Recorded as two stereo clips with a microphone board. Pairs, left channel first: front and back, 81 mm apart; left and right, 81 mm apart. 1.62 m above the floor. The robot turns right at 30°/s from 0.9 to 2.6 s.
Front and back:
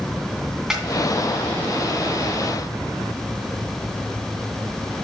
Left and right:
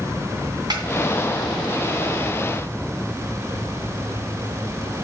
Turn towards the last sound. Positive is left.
turn(degrees=-45)